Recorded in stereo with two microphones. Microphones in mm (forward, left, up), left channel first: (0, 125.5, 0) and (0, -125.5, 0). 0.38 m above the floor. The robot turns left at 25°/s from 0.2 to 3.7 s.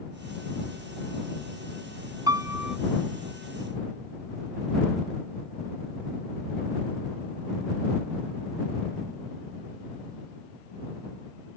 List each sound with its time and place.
2.3 s a piano: 15° right (ahead or behind); by 2.8 s 5° right (ahead or behind)